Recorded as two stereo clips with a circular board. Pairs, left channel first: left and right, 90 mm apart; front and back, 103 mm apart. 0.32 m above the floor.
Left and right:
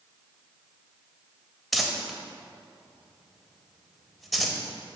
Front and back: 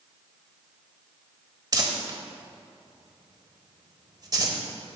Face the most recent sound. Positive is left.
turn(degrees=180)